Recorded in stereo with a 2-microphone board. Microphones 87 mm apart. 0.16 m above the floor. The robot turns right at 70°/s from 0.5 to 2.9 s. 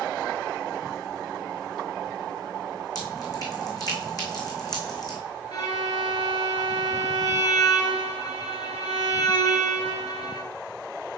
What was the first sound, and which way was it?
Dripping, 45° left (ahead or behind).